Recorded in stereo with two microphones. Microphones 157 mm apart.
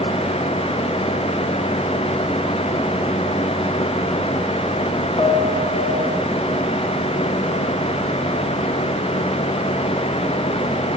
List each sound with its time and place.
5.2 s a piano: 45° left (ahead or behind), 1.1 m